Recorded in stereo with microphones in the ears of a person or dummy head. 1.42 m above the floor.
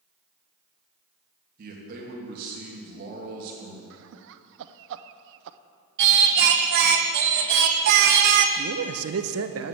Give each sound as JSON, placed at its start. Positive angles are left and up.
{"t": 1.6, "sound": "a man speaking", "side_deg": -50, "distance_m": 2.5}
{"t": 3.9, "sound": "laughter", "side_deg": -65, "distance_m": 0.6}
{"t": 6.0, "sound": "singing", "side_deg": -55, "distance_m": 0.7}
{"t": 8.6, "sound": "a man speaking", "side_deg": -65, "distance_m": 0.7}